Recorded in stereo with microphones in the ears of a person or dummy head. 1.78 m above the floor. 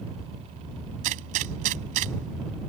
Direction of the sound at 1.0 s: 45° right (ahead or behind).